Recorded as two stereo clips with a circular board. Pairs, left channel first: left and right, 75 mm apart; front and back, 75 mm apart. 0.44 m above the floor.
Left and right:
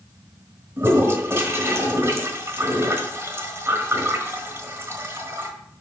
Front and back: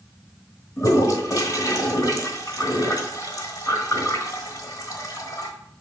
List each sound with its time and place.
0.8 s a toilet flushing: 35° right, 1.4 m